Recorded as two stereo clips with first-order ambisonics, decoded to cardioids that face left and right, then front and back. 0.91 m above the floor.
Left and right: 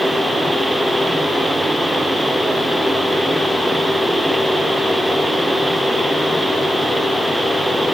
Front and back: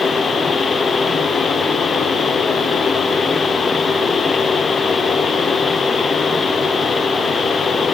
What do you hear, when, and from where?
Only background noise.